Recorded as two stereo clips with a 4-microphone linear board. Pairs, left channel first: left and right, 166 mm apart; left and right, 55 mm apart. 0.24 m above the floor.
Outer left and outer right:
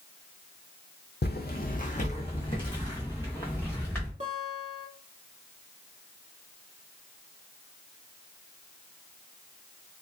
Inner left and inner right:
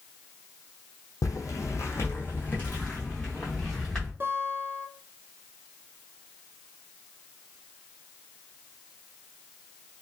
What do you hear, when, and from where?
1.2 s footsteps: 75° left (ahead or behind), 0.8 m; by 4.1 s 10° left (ahead or behind), 2 m
4.2 s a guitar: 40° right (ahead or behind), 0.8 m